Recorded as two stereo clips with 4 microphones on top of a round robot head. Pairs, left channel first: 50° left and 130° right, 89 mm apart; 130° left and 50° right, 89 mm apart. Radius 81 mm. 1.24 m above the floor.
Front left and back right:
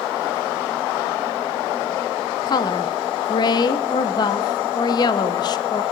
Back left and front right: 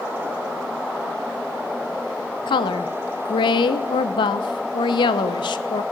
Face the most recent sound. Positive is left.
turn(degrees=90)